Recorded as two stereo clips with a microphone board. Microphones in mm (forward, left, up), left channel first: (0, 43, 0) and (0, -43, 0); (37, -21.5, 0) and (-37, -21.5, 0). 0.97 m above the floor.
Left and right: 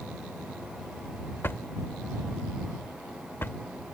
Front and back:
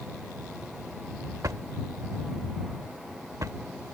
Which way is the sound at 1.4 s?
150° left.